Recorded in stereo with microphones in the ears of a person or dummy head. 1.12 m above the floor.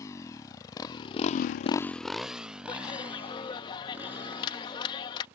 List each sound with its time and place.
0.0 s a motorcycle: 20° left (ahead or behind); by 5.4 s 15° right (ahead or behind)
2.7 s a clap: 30° left (ahead or behind)